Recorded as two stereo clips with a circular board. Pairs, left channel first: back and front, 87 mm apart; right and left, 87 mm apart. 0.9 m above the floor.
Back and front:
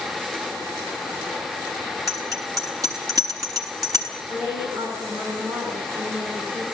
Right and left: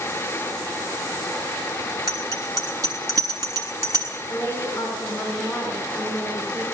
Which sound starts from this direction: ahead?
A woman speaking, at 4.3 s.